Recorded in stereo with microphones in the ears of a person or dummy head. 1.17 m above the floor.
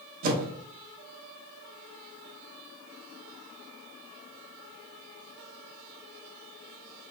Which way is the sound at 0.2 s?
45° right (ahead or behind).